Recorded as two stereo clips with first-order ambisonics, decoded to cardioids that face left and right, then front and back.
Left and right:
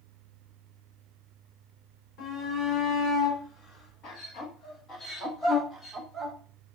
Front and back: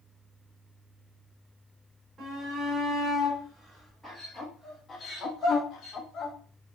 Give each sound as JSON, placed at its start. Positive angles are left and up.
{"t": 2.2, "sound": "a shout", "azimuth_deg": 110, "distance_m": 2.5}